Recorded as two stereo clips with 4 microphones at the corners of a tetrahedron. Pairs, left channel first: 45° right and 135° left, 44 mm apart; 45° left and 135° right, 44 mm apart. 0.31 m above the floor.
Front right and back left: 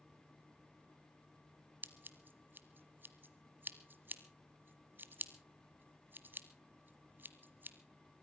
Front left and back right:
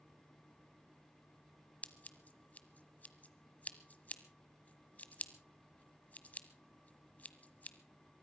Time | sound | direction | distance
1.8 | scissors | 100° left | 1.1 m